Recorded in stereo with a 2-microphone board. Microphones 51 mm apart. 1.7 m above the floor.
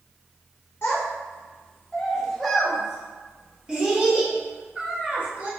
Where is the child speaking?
40° left (ahead or behind), 1.0 m; by 5.5 s 35° right (ahead or behind), 2 m.